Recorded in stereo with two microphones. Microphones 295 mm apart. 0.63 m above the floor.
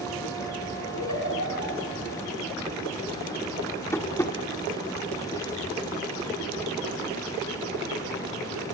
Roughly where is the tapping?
Centre.